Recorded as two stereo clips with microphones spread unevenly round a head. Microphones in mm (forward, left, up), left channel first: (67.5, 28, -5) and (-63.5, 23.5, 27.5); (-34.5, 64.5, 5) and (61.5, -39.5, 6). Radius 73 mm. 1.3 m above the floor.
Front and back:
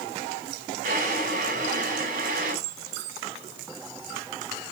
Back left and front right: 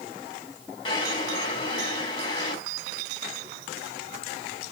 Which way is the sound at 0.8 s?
170° right.